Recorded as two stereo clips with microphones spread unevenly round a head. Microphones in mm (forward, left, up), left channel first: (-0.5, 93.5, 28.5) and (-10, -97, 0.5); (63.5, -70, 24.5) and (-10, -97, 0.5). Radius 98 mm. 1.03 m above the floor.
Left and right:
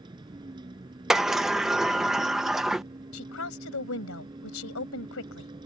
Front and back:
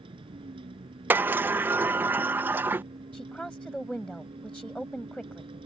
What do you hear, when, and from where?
0.0 s a vehicle: 160° right
1.1 s a sliding door: 170° right
3.1 s a woman speaking: 105° left